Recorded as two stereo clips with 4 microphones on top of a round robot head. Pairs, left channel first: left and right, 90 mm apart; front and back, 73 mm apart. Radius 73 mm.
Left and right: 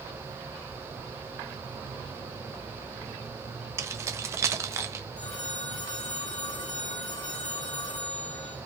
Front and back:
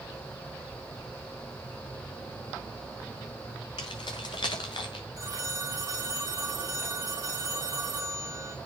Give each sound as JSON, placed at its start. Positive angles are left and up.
{"t": 3.8, "sound": "keys jangling", "azimuth_deg": -40, "distance_m": 1.1}
{"t": 5.2, "sound": "a phone ringing", "azimuth_deg": 145, "distance_m": 3.0}